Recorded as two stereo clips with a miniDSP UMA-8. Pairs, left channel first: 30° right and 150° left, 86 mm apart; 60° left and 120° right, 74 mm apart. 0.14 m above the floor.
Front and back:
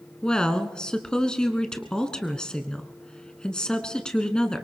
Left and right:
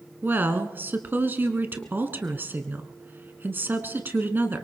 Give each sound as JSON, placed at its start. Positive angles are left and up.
{"t": 0.2, "sound": "a woman speaking", "azimuth_deg": -100, "distance_m": 1.2}